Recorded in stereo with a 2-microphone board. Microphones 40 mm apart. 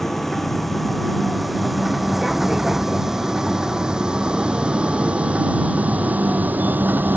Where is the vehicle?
5° left (ahead or behind); by 7.2 s 50° right (ahead or behind).